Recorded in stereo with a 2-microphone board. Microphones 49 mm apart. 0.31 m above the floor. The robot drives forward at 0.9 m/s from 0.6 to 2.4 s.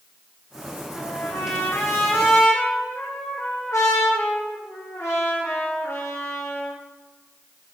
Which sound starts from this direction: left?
A trumpet, at 0.9 s.